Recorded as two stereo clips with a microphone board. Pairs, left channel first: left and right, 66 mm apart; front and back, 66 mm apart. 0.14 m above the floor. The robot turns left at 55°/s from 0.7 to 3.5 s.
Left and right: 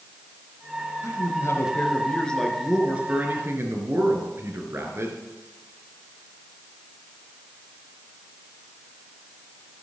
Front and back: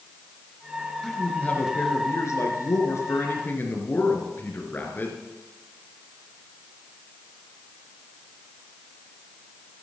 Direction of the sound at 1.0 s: 85° left.